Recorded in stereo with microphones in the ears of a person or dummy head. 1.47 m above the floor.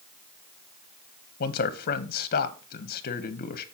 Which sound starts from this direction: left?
A man speaking, at 1.4 s.